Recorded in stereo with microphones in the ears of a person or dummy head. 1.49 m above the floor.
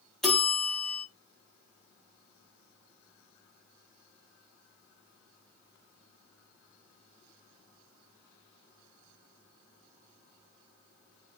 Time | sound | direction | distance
0.2 | a bell | 5° left (ahead or behind) | 1.1 m